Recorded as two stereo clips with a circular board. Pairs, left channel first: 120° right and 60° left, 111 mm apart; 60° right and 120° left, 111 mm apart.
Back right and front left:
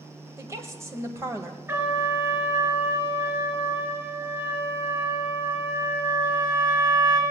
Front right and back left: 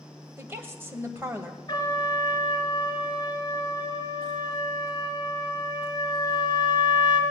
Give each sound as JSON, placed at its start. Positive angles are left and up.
{"t": 0.4, "sound": "a woman speaking", "azimuth_deg": 80, "distance_m": 1.5}
{"t": 1.7, "sound": "a trumpet", "azimuth_deg": -5, "distance_m": 3.5}